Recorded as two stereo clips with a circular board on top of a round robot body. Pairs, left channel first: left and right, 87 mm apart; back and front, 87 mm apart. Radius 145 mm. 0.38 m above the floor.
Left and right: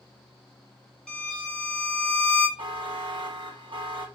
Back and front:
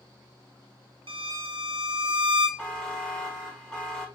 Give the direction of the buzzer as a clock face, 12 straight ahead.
3 o'clock.